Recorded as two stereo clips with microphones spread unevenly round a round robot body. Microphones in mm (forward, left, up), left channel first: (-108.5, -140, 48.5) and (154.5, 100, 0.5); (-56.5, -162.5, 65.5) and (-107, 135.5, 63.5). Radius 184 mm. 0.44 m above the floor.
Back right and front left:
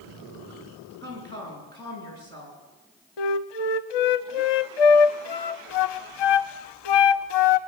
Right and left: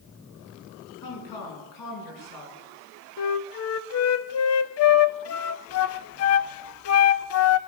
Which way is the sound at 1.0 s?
60° right.